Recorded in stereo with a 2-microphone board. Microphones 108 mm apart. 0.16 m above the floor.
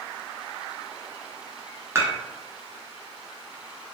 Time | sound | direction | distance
1.9 | dishes clattering | 20° right (ahead or behind) | 1.1 m